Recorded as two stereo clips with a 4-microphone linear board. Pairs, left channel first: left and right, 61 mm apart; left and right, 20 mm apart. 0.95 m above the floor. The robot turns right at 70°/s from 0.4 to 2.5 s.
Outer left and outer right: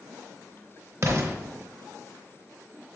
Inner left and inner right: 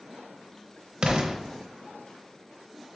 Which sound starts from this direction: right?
An explosion, at 1.0 s.